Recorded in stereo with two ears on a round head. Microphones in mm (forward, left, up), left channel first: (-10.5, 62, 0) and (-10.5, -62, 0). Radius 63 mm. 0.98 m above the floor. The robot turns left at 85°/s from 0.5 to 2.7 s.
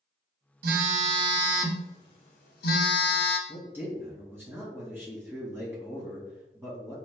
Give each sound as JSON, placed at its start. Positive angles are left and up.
{"t": 0.6, "sound": "a phone buzzing", "azimuth_deg": -95, "distance_m": 0.9}
{"t": 3.5, "sound": "a man speaking", "side_deg": -15, "distance_m": 1.6}